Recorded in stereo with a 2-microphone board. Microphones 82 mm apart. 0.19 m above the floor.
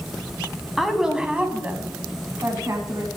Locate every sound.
0.8 s a woman speaking: centre (ahead or behind), 1.4 m; by 3.1 s 40° right (ahead or behind), 1.8 m